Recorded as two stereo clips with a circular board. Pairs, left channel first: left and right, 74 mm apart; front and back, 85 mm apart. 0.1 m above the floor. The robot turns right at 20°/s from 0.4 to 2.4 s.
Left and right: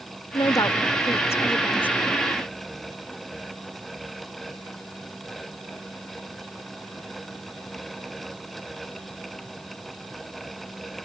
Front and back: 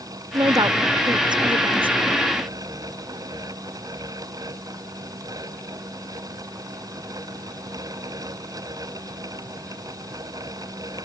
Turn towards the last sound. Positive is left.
turn(degrees=170)